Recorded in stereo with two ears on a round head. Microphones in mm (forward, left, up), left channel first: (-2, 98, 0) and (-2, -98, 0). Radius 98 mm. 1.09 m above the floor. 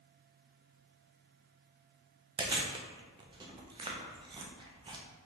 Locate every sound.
2.4 s chewing: 20° right (ahead or behind), 0.5 m